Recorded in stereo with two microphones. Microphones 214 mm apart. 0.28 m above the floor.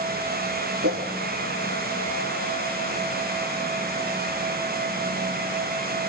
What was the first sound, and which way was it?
A whoosh, 85° right.